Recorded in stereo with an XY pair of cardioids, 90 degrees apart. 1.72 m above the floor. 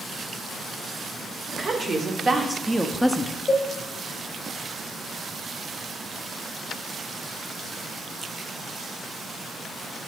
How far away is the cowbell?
About 1.0 m.